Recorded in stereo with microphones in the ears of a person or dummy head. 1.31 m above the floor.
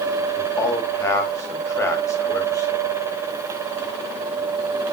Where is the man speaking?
15° left (ahead or behind), 2.5 m.